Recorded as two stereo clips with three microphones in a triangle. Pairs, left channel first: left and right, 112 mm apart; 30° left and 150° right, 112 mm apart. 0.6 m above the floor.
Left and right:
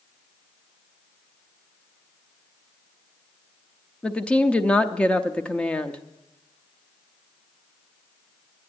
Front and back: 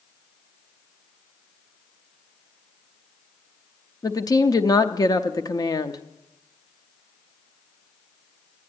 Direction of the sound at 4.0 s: 20° left.